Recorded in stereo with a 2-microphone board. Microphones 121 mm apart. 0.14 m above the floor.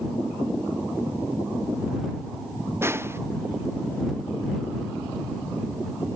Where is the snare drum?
20° right (ahead or behind).